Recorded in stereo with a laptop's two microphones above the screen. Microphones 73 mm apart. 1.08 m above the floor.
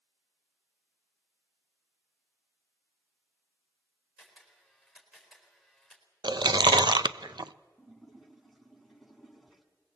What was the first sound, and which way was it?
A camera shutter, centre (ahead or behind).